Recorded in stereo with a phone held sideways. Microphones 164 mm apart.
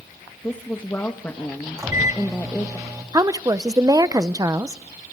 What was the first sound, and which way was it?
A woman speaking, 15° left (ahead or behind).